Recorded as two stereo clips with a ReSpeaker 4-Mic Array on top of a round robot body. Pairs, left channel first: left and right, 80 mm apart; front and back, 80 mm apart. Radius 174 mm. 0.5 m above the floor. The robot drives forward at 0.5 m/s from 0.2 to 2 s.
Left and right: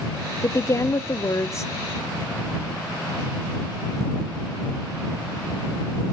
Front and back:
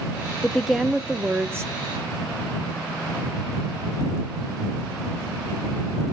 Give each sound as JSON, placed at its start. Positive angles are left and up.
{"t": 0.4, "sound": "a woman speaking", "azimuth_deg": 70, "distance_m": 0.9}